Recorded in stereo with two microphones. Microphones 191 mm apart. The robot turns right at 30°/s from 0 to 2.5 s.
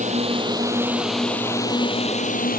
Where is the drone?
40° right (ahead or behind); by 2.6 s 50° left (ahead or behind).